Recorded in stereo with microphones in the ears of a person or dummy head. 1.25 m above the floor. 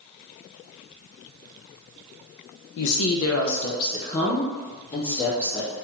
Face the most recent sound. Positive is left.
turn(degrees=10)  # may be behind; listen again after turning